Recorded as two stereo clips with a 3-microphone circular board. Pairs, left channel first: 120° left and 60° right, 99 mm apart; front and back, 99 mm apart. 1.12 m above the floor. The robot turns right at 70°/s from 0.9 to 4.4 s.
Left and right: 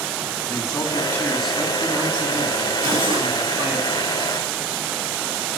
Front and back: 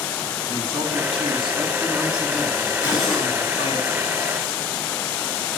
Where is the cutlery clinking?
105° right, 9 m; by 3.3 s 75° right, 9 m.